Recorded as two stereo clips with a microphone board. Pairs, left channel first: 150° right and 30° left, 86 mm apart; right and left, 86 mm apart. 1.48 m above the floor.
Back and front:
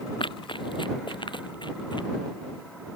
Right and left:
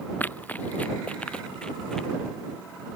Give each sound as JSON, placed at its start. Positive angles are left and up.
{"t": 0.2, "sound": "running footsteps", "azimuth_deg": -160}